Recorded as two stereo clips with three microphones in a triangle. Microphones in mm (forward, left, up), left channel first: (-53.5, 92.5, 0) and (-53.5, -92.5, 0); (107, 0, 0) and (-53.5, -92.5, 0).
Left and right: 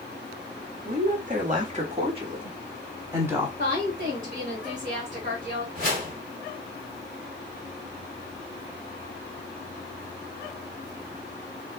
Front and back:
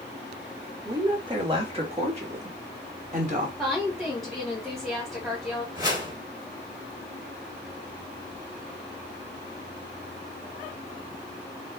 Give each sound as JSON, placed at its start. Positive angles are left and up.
{"t": 0.8, "sound": "a woman speaking", "azimuth_deg": -85, "distance_m": 1.5}
{"t": 3.6, "sound": "a woman speaking", "azimuth_deg": -60, "distance_m": 1.3}
{"t": 5.8, "sound": "a whoosh", "azimuth_deg": -85, "distance_m": 1.8}